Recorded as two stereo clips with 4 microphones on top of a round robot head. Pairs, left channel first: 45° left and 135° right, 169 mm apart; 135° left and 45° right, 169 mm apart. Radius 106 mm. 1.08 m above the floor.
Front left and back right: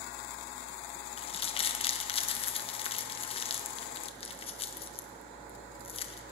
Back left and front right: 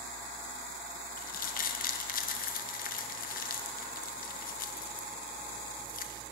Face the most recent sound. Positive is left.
turn(degrees=100)